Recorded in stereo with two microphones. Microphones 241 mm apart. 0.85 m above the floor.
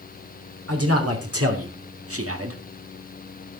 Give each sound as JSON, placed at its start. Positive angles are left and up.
{"t": 0.7, "sound": "a man speaking", "side_deg": -75, "distance_m": 3.5}